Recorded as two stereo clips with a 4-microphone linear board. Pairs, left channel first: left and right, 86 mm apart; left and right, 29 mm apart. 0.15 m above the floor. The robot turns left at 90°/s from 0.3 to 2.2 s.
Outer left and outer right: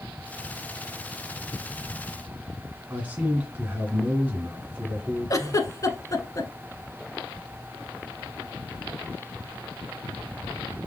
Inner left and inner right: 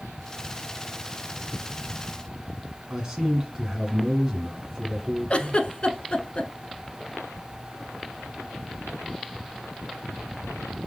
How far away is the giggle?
About 0.5 m.